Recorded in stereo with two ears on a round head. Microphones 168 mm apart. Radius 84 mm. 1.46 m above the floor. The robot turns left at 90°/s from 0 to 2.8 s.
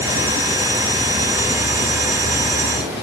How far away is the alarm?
No alarm in this recording.